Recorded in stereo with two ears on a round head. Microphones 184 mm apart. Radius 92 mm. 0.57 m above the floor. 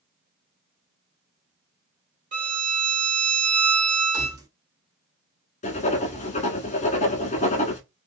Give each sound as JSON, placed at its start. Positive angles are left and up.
{"t": 2.3, "sound": "a violin", "side_deg": -40, "distance_m": 1.9}
{"t": 4.1, "sound": "keys jangling", "side_deg": -20, "distance_m": 1.3}
{"t": 5.6, "sound": "writing", "side_deg": 35, "distance_m": 1.2}